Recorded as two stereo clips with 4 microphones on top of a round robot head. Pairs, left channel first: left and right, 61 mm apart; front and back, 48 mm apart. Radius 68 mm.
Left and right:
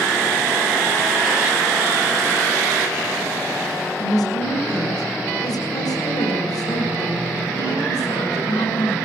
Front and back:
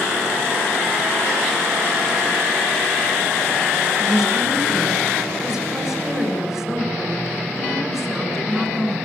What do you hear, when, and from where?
4.0 s a woman speaking: 100° left, 7.5 m